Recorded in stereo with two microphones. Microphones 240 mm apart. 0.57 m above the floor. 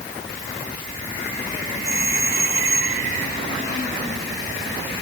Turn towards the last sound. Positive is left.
turn(degrees=-10)  # may be behind; listen again after turning